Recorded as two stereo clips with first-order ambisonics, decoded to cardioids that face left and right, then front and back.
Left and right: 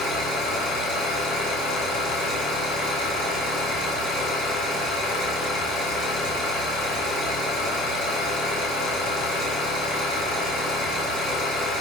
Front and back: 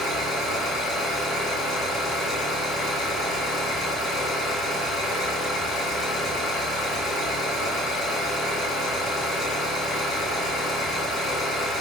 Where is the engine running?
65° left, 1.3 m.